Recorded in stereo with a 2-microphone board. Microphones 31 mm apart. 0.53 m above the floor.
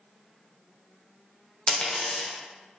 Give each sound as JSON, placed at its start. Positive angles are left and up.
{"t": 1.7, "sound": "a dropped coin", "side_deg": 25, "distance_m": 0.6}